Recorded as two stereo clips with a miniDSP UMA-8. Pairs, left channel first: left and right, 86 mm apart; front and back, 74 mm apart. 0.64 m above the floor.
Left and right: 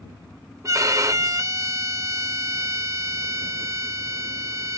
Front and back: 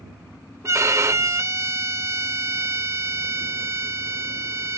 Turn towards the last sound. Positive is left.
turn(degrees=-135)